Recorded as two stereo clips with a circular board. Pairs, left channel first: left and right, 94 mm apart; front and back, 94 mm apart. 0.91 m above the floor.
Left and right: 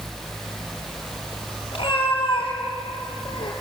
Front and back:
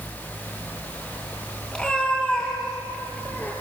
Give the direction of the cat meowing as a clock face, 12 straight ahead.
9 o'clock.